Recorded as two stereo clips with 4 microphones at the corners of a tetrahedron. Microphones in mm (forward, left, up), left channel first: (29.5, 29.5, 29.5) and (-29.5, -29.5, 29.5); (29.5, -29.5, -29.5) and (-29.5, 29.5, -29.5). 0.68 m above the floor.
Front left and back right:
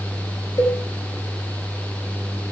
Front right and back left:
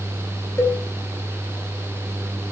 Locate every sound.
0.6 s a cowbell: 5° left, 5 m